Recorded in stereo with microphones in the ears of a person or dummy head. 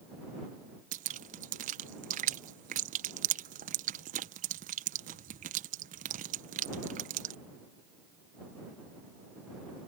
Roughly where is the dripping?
Right.